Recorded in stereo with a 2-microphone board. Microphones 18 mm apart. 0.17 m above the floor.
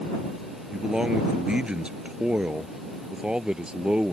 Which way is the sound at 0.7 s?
55° right (ahead or behind).